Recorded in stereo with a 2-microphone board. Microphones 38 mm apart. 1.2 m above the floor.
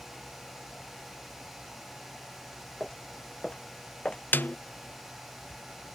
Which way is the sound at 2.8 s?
25° left (ahead or behind).